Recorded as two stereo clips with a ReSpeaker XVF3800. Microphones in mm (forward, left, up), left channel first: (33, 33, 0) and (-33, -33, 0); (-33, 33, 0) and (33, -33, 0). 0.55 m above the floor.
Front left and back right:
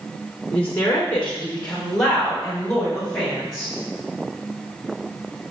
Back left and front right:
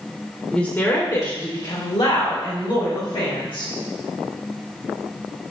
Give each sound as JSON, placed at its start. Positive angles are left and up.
{"t": 0.5, "sound": "a woman speaking", "azimuth_deg": 70, "distance_m": 0.7}